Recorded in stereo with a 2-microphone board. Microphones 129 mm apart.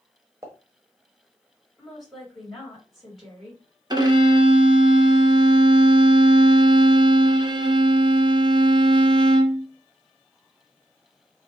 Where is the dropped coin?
No dropped coin in this recording.